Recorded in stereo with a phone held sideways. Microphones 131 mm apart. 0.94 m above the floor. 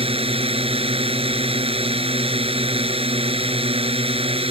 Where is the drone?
50° right (ahead or behind).